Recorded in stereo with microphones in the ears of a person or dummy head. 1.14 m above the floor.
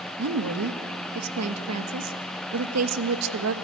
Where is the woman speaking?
80° right, 1.4 m.